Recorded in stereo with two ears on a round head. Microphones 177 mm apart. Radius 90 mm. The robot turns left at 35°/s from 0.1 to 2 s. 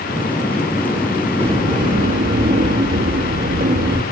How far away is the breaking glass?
I don't hear breaking glass.